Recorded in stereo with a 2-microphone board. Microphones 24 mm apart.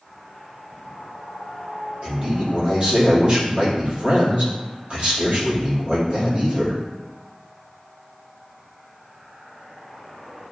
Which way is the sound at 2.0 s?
45° right (ahead or behind).